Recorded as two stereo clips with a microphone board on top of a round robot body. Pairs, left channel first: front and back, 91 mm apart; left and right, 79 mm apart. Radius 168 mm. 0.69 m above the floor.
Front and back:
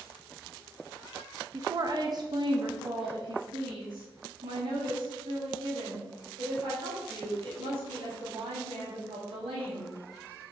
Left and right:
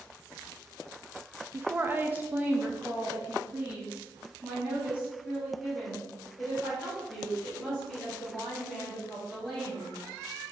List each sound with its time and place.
1.5 s a woman speaking: 140° right, 0.8 m; by 9.9 s 170° right, 5 m